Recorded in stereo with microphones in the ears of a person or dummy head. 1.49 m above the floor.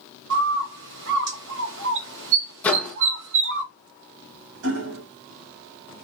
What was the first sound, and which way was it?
A bird, 60° right (ahead or behind).